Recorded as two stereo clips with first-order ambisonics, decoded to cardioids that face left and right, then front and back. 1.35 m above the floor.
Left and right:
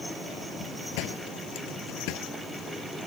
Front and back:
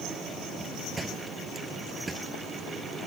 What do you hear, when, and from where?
1.0 s a door slam: 100° left